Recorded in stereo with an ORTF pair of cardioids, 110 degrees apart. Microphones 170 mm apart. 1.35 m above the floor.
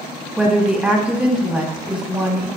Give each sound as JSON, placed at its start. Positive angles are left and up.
{"t": 0.4, "sound": "a woman speaking", "azimuth_deg": -5, "distance_m": 0.8}